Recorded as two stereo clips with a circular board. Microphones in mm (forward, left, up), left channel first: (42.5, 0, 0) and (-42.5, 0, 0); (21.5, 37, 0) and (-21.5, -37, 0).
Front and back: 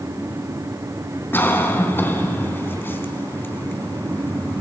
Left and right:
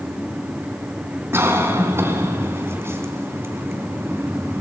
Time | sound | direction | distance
1.3 | a cough | 65° right | 3.5 m